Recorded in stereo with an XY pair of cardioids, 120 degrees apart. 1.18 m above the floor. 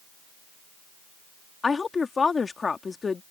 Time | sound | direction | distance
1.6 | a woman speaking | 30° left | ?